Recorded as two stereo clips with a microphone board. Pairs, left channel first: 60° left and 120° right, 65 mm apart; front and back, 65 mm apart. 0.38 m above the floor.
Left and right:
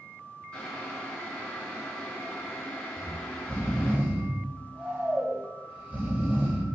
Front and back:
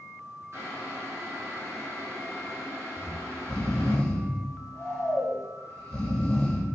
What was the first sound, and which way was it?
Boiling, 130° left.